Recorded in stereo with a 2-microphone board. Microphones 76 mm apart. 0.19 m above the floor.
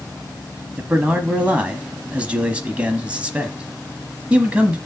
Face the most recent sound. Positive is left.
turn(degrees=-15)  # may be behind; listen again after turning